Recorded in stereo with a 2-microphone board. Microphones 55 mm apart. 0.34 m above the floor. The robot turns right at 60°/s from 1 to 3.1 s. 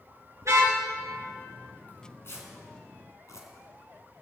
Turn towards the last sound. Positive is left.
turn(degrees=70)  # may be behind; listen again after turning